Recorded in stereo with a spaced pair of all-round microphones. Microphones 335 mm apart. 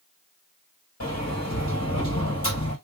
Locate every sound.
1.0 s a sliding door: 50° left (ahead or behind), 2.5 m